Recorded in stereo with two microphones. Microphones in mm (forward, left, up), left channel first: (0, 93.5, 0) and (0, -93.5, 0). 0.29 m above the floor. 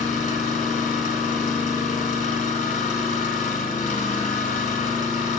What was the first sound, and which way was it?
An engine running, 45° left (ahead or behind).